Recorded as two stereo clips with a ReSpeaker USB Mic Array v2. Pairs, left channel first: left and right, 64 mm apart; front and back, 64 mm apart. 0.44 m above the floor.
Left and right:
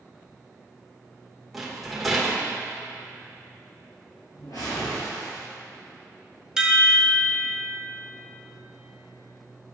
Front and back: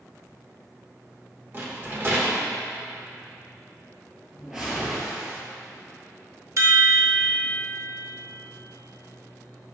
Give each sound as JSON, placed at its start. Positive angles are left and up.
{"t": 1.5, "sound": "a rattle", "azimuth_deg": 175, "distance_m": 1.1}
{"t": 4.3, "sound": "a whoosh", "azimuth_deg": 100, "distance_m": 1.8}
{"t": 6.6, "sound": "a chime", "azimuth_deg": -165, "distance_m": 0.7}